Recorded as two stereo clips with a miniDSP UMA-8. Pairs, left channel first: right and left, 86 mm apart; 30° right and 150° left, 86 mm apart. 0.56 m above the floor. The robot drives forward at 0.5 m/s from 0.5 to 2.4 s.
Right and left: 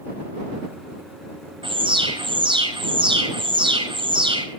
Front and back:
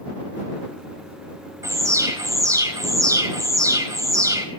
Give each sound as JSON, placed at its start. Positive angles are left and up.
{"t": 1.6, "sound": "an alarm", "azimuth_deg": 100, "distance_m": 4.5}